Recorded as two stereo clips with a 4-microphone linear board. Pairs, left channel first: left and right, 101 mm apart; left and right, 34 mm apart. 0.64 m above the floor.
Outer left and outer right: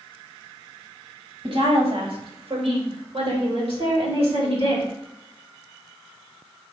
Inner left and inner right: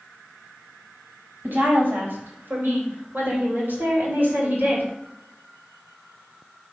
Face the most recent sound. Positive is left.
turn(degrees=-65)  # may be behind; listen again after turning